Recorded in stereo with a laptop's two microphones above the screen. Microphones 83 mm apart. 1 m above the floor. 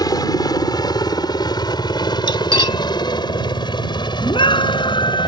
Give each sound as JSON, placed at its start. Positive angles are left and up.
{"t": 0.0, "sound": "a helicopter", "side_deg": 50}
{"t": 2.3, "sound": "cutlery clinking", "side_deg": 65}
{"t": 4.2, "sound": "a scream", "side_deg": 75}